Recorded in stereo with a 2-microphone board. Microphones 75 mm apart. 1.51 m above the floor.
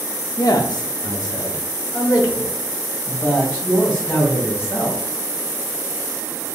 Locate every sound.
0.4 s a man speaking: 60° left (ahead or behind), 0.6 m; by 5.0 s 35° left (ahead or behind), 2.5 m